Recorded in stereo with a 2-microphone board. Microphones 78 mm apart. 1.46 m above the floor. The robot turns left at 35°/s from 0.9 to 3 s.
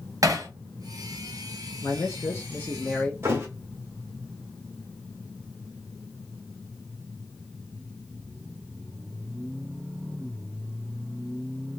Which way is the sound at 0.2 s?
45° right (ahead or behind).